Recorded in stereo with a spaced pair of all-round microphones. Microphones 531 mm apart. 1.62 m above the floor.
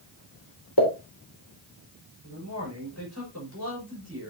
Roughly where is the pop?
Left.